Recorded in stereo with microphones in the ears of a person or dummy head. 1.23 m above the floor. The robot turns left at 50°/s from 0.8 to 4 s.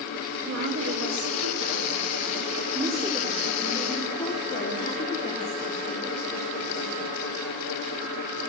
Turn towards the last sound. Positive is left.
turn(degrees=150)